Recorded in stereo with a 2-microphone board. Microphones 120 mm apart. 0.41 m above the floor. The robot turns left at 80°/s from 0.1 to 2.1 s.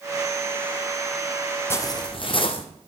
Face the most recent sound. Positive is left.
turn(degrees=125)